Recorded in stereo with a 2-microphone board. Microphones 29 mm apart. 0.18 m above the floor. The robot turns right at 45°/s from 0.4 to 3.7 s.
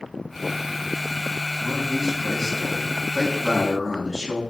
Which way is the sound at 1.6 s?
15° left (ahead or behind).